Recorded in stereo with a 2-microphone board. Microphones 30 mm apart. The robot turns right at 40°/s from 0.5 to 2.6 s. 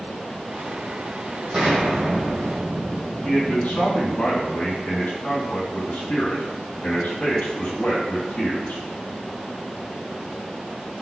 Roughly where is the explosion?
Ahead right.